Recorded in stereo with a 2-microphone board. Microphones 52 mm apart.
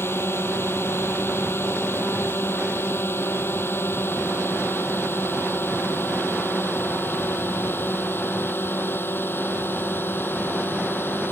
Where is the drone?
50° left (ahead or behind); by 11.3 s 45° left (ahead or behind).